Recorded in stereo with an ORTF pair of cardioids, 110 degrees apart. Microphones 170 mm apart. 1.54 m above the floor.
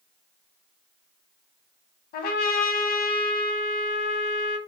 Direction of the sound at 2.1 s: 65° left.